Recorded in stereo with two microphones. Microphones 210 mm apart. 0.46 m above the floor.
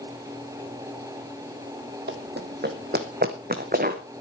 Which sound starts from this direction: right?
Running footsteps, at 2.1 s.